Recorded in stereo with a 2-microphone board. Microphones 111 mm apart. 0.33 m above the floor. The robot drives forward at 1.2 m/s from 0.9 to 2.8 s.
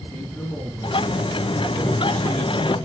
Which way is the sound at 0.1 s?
10° left (ahead or behind).